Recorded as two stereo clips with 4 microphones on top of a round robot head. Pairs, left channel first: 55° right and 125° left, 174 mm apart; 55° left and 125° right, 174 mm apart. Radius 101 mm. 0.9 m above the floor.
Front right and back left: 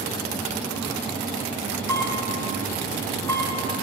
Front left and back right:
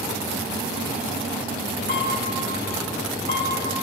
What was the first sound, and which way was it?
A camera shutter, 15° left.